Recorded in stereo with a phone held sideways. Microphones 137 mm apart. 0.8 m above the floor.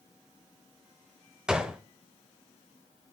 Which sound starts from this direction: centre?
A gunshot, at 1.5 s.